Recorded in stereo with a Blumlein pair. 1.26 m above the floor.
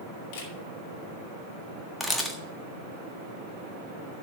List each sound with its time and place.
0.3 s a camera shutter: 45° left, 3 m
2.0 s a camera shutter: straight ahead, 1.6 m